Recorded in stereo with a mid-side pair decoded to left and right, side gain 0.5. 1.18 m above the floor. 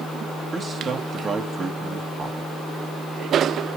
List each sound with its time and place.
0.5 s a man speaking: 40° right, 1.4 m